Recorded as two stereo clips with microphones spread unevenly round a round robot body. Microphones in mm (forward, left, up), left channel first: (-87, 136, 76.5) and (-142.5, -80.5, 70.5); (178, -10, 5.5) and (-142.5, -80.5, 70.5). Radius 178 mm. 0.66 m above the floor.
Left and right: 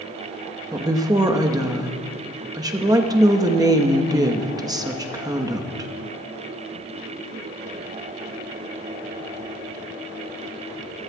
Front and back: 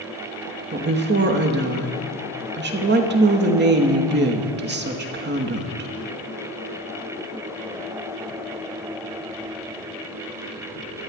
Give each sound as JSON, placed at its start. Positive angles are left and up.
{"t": 0.7, "sound": "a woman speaking", "azimuth_deg": -140, "distance_m": 1.1}